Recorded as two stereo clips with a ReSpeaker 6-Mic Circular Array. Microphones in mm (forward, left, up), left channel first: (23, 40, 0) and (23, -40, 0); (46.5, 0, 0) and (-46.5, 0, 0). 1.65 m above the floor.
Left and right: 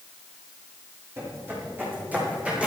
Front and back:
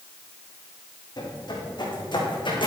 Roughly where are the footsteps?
Ahead right.